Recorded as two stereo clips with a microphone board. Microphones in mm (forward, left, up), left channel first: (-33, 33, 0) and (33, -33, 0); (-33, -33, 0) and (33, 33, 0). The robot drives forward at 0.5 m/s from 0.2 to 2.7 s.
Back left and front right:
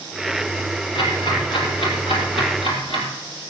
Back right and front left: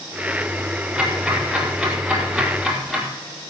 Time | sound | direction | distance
0.9 | ticking | 130° left | 6 m